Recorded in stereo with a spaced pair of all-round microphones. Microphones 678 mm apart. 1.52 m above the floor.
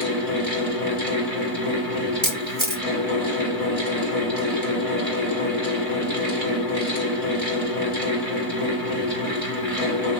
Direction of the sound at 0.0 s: 55° right (ahead or behind).